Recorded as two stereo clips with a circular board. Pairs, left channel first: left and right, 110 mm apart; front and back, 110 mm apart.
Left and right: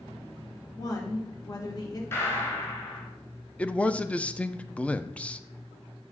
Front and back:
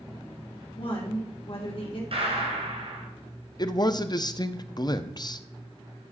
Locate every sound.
0.8 s a woman speaking: 35° left, 2.5 m
2.1 s a gunshot: 155° left, 3 m
3.6 s a man speaking: 15° left, 0.6 m